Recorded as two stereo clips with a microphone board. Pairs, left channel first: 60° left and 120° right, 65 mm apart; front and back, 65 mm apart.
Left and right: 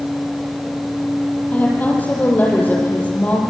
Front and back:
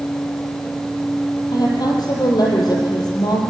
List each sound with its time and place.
1.5 s a woman speaking: 5° right, 6.5 m